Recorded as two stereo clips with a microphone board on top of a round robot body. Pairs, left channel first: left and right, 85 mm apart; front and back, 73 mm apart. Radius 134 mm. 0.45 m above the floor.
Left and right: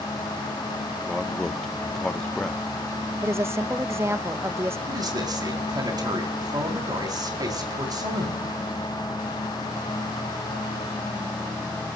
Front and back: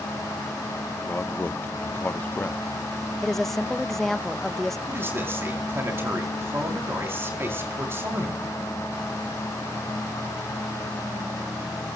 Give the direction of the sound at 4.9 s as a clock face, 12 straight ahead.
4 o'clock.